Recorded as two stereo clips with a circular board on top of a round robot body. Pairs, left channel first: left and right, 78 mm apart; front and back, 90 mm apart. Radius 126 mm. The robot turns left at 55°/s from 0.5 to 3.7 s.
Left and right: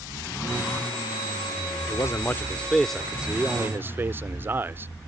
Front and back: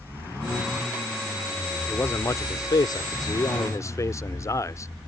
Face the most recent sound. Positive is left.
turn(degrees=-40)